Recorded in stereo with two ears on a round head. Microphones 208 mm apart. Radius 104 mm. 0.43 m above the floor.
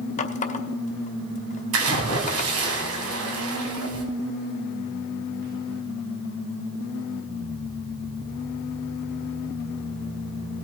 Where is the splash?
70° right (ahead or behind), 2 m.